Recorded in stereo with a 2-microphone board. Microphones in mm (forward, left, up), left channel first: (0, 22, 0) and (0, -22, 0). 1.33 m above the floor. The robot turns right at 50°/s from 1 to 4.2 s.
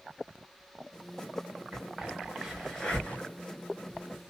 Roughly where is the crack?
Right.